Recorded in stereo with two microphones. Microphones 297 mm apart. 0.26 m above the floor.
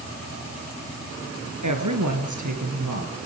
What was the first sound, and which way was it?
A woman speaking, 75° right (ahead or behind).